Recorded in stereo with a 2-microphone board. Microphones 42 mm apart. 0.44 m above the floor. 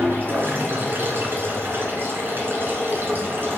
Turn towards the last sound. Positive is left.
turn(degrees=-55)  # may be behind; listen again after turning